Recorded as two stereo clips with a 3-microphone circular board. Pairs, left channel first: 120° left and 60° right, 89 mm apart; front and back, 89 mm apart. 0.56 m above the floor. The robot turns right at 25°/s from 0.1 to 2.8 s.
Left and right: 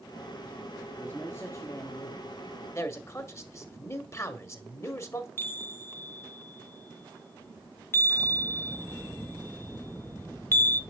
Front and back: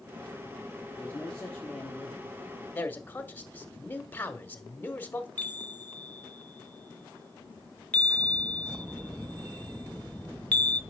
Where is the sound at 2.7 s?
65° left, 1.2 m.